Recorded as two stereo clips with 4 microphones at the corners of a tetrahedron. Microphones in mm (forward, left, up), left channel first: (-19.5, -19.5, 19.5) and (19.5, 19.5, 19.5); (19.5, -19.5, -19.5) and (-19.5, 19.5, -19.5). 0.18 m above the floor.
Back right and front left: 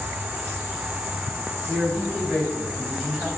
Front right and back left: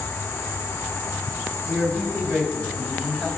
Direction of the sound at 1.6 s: 60° right.